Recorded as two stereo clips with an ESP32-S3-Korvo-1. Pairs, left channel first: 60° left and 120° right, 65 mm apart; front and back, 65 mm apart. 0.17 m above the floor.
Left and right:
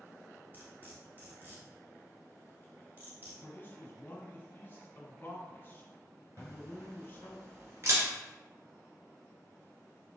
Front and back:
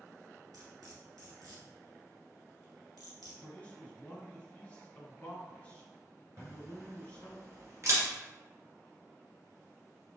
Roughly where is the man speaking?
Ahead left.